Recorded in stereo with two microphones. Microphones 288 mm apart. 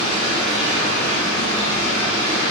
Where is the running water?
45° right (ahead or behind), 1.7 m.